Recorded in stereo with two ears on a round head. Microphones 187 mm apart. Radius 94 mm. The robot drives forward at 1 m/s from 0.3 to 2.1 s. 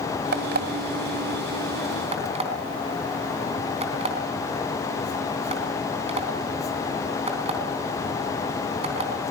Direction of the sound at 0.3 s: 55° right (ahead or behind).